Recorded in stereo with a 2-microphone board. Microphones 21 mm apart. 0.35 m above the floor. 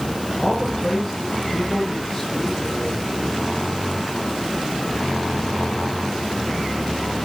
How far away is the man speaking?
About 9.5 m.